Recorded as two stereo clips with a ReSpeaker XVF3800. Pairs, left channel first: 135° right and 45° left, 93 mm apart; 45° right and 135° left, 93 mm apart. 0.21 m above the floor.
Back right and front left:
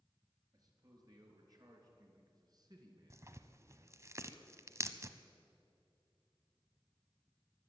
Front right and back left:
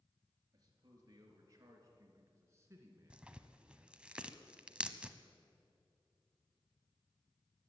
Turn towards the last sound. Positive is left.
turn(degrees=65)